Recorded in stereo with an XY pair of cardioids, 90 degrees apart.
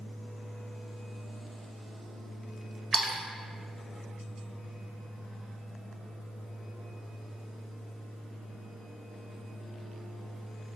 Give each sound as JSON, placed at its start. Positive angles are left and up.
{"t": 2.9, "sound": "a splash", "azimuth_deg": -35, "distance_m": 0.6}